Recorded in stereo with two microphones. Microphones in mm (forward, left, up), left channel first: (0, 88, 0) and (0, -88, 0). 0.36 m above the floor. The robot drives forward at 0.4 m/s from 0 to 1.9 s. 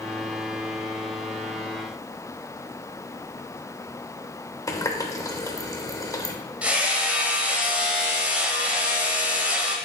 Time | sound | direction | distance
4.7 | a running tap | 20° left (ahead or behind) | 0.7 m
6.6 | hammering | 5° right (ahead or behind) | 1.2 m